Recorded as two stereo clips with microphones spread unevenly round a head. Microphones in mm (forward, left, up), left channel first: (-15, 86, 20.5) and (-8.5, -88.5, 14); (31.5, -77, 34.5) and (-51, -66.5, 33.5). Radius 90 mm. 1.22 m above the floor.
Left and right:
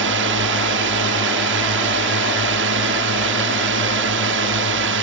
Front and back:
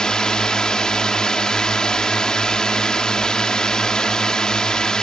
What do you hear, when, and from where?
0.0 s a drone: 90° right